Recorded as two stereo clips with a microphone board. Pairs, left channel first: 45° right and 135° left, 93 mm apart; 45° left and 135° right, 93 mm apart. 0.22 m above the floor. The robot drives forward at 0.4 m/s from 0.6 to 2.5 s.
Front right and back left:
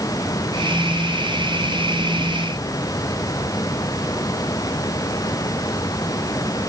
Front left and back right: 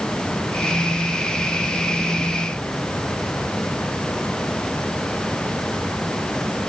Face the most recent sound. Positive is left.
No sound to turn to.